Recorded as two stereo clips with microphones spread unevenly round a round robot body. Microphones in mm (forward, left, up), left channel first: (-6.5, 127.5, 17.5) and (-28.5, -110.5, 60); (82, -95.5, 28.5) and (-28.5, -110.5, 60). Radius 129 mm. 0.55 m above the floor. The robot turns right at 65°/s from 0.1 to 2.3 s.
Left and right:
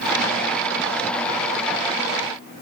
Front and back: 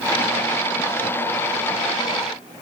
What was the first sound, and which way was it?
Only background noise.